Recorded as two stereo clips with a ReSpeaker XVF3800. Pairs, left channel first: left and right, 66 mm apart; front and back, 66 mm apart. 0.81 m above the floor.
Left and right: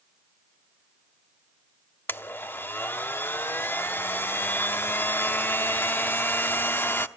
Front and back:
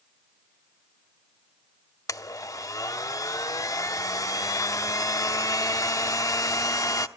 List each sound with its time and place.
2.1 s a blender: 35° left, 0.8 m